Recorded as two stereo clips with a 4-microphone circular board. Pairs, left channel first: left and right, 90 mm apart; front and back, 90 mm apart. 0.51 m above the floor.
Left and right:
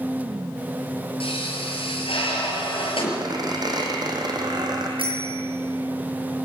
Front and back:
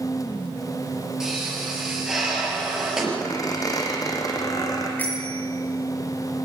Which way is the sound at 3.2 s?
50° right.